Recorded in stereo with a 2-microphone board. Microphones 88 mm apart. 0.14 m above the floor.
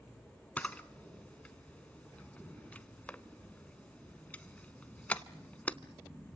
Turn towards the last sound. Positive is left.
turn(degrees=15)  # may be behind; listen again after turning